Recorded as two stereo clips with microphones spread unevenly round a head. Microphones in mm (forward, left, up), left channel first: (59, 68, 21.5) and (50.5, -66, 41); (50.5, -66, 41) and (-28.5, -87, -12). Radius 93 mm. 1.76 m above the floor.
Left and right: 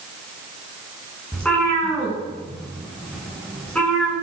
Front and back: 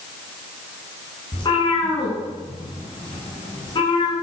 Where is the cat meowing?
5° left, 9 m.